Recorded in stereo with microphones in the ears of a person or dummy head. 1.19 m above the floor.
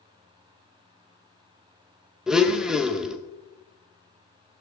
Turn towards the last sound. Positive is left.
turn(degrees=5)  # may be behind; listen again after turning